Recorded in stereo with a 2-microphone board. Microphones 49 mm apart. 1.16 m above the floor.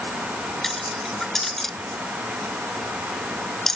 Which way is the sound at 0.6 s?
5° left (ahead or behind).